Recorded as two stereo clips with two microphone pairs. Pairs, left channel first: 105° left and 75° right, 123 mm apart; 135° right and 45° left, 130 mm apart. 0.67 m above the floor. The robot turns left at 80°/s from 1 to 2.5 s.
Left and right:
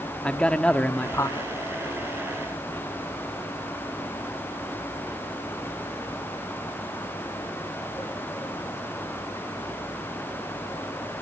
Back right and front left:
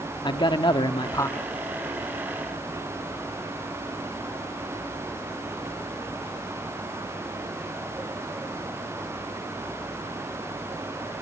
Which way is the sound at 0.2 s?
175° right.